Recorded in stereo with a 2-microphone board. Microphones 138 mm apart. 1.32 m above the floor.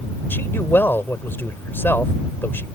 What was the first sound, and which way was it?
A man speaking, 15° left (ahead or behind).